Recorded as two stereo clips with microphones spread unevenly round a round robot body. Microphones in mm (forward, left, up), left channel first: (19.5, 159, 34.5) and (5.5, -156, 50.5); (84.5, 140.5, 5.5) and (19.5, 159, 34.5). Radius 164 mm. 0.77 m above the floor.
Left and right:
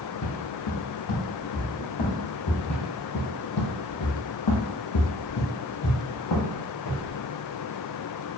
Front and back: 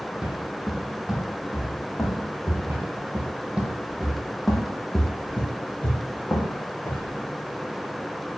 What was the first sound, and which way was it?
Footsteps, 115° left.